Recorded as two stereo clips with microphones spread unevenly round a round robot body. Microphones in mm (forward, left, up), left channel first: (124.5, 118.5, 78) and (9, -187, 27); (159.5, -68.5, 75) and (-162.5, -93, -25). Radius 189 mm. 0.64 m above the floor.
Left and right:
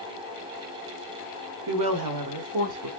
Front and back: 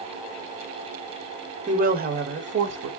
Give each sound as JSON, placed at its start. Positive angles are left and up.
{"t": 1.7, "sound": "a woman speaking", "azimuth_deg": -115, "distance_m": 2.5}